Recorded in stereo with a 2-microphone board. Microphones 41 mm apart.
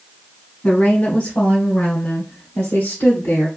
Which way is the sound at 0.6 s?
30° left (ahead or behind).